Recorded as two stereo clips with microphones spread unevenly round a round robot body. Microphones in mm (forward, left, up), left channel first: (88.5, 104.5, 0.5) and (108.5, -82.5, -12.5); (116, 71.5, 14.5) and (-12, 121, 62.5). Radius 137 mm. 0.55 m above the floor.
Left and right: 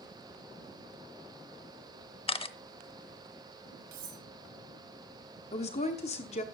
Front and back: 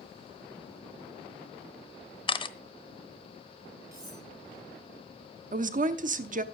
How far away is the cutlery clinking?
About 3 m.